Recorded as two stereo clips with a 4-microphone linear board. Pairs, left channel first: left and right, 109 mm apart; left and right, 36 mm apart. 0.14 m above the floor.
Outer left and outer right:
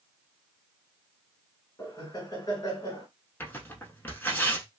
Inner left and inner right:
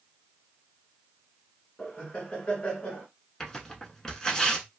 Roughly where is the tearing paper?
Centre.